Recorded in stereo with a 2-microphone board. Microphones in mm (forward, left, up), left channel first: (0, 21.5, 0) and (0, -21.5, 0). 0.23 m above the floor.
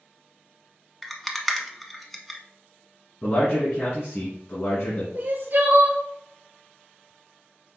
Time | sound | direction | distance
1.0 | a rattle | centre (ahead or behind) | 0.6 m
3.2 | a man speaking | 60° left (ahead or behind) | 2 m
5.2 | crying | 45° right (ahead or behind) | 0.7 m